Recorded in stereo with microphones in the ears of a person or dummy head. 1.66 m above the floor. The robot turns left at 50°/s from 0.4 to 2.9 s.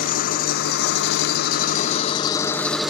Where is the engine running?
125° left, 0.8 m; by 2.9 s straight ahead, 0.8 m.